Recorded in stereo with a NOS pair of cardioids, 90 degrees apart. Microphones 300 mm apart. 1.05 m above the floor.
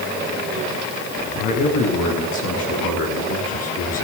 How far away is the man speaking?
About 9.5 m.